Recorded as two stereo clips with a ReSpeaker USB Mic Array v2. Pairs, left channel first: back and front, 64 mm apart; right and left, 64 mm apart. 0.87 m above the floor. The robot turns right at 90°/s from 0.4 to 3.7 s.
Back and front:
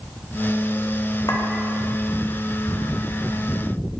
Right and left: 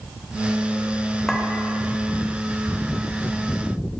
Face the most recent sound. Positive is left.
turn(degrees=40)